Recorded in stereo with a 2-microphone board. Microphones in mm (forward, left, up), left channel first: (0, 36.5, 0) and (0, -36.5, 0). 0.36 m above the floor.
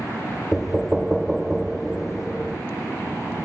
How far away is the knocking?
About 0.5 m.